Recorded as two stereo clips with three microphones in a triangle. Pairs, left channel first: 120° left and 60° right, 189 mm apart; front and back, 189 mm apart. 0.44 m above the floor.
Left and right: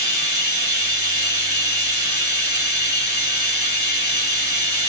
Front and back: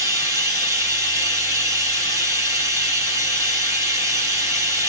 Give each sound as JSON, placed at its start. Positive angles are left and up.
{"t": 0.0, "sound": "running water", "azimuth_deg": 105, "distance_m": 2.5}